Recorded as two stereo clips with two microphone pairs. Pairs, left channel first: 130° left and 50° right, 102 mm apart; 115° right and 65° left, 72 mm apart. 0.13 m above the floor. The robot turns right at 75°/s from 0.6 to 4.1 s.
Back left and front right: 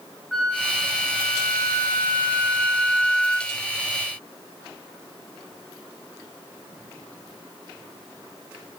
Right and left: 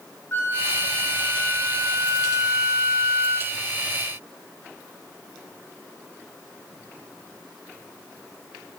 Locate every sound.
0.3 s a flute: 145° right, 0.6 m; by 3.5 s 75° left, 0.6 m